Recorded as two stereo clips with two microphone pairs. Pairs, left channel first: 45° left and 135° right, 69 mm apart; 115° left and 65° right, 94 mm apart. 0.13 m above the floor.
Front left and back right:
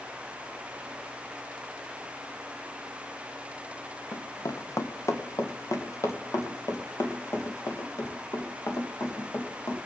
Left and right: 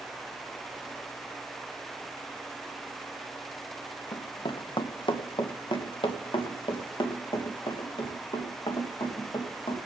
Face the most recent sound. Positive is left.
turn(degrees=85)